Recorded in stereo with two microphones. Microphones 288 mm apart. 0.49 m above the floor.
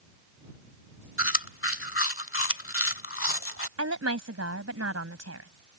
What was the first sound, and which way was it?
Chewing, 50° left (ahead or behind).